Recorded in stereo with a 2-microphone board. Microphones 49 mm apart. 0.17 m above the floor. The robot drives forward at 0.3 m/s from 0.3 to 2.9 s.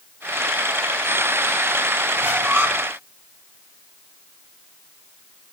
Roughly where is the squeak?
Right.